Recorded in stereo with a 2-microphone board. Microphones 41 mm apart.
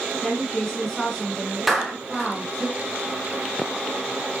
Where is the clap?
Centre (ahead or behind), 2.5 m.